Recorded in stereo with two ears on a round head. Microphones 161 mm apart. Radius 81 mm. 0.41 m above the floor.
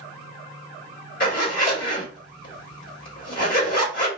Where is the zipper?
50° left (ahead or behind), 2 m.